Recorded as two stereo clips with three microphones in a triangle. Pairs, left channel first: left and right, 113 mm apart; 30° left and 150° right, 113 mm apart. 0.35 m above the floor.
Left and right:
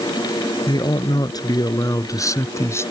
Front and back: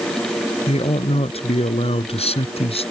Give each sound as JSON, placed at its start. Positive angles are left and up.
{"t": 0.7, "sound": "a man speaking", "azimuth_deg": 45}